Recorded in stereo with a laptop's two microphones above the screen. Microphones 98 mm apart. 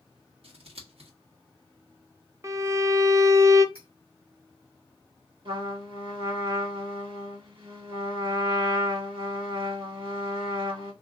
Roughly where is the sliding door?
I don't hear a sliding door.